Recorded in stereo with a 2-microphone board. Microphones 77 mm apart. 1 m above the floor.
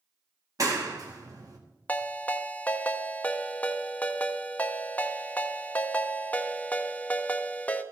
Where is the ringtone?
20° left (ahead or behind), 0.6 m.